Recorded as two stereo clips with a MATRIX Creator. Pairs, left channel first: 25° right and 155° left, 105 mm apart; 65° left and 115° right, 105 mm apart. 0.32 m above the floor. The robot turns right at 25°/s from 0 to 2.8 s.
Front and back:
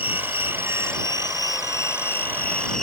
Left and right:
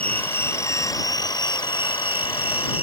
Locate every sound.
0.0 s an insect: 10° right; by 2.8 s 60° left